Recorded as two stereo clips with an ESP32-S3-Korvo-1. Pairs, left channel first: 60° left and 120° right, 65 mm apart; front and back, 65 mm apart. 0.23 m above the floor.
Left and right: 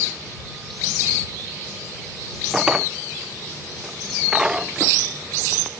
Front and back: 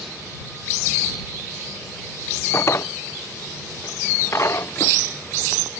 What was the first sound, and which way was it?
A drawer, 40° right.